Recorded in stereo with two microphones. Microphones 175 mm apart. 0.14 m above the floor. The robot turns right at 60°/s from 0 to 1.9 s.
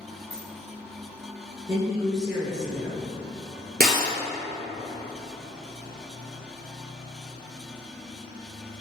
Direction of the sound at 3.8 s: 60° right (ahead or behind).